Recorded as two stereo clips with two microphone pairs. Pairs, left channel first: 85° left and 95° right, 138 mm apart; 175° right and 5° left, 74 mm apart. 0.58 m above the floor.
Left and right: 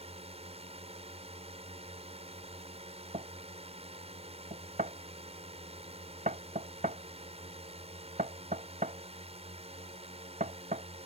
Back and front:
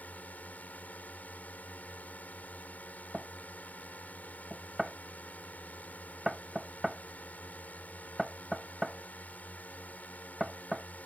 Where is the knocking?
80° right.